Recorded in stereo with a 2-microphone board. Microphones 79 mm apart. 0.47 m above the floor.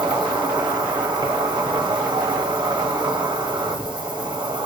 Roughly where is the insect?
Right.